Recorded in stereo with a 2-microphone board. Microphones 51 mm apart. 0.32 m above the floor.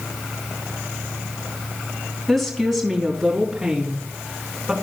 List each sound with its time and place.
2.3 s a woman speaking: 5° left (ahead or behind), 3 m; by 4.7 s 10° right (ahead or behind), 3.5 m